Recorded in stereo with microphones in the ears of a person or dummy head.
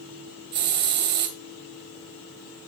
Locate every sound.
0.5 s a hiss: 55° right (ahead or behind), 2 m